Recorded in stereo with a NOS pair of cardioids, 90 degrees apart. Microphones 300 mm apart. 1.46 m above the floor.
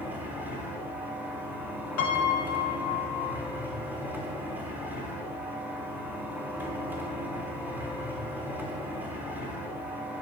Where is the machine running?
5° right, 3.5 m.